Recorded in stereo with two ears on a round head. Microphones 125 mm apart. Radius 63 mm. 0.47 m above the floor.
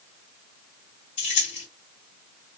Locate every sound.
1.2 s keys jangling: 55° left (ahead or behind), 2.5 m